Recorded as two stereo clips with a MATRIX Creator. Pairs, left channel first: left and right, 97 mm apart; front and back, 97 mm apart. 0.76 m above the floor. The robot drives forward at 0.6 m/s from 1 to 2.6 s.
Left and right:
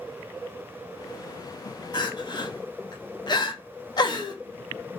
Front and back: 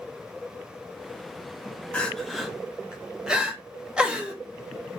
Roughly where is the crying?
Left.